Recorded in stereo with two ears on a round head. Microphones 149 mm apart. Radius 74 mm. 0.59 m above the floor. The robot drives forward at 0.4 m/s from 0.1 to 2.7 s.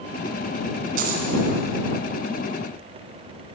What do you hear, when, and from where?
1.0 s a dropped coin: 55° right (ahead or behind), 2 m; by 1.3 s 60° right (ahead or behind), 2 m